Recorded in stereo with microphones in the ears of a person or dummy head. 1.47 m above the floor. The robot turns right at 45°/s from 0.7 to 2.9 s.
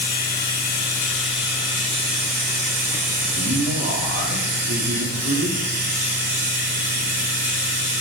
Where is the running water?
150° left, 3.5 m; by 8.0 s 110° right, 3.5 m.